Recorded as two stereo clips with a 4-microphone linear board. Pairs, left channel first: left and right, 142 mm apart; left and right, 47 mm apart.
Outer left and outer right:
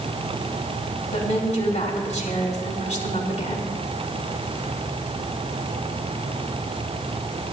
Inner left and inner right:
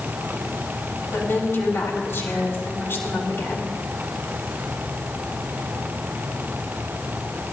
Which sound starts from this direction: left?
A woman speaking, at 1.1 s.